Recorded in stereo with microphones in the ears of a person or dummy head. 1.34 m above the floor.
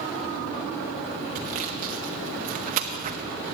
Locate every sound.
1.4 s sawing: 40° right (ahead or behind), 0.7 m